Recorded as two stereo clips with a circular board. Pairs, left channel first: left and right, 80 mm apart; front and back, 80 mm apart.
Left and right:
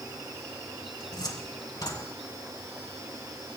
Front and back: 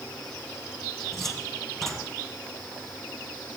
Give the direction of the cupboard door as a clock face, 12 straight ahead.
9 o'clock.